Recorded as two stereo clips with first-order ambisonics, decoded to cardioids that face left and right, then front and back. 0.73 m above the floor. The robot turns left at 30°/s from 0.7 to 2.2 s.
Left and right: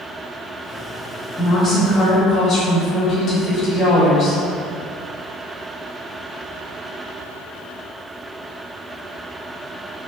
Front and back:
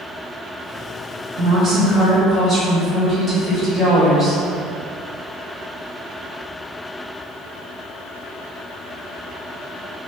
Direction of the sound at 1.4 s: 145° left.